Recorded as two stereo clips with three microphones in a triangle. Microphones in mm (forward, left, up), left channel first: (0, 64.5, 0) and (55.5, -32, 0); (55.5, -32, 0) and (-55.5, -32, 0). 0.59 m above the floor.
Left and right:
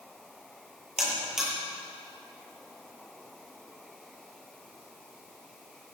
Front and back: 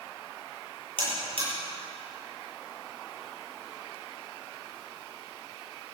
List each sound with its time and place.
1.0 s a buzzer: 145° right, 9.5 m